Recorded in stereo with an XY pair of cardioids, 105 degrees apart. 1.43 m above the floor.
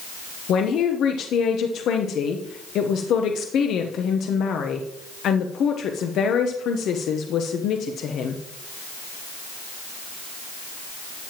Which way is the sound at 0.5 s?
70° left.